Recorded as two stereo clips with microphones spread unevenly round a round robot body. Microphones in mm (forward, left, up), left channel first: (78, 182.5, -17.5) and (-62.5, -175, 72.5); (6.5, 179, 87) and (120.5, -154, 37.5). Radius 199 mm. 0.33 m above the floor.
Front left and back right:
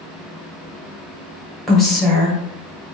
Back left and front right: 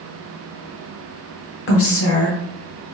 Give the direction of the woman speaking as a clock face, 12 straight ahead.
8 o'clock.